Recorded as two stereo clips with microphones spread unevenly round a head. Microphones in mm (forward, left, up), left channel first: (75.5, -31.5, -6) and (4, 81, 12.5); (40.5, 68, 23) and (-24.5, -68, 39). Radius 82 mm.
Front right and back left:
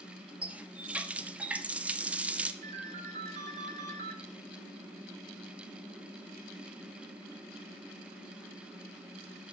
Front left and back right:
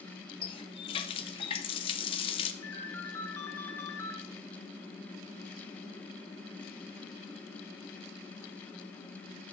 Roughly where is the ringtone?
Behind left.